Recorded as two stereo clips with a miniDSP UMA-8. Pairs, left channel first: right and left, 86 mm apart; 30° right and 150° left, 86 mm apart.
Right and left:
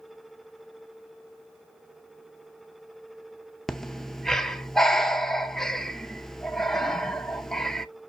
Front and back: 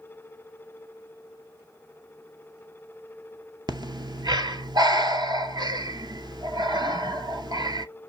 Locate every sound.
3.7 s breathing: 175° right, 0.6 m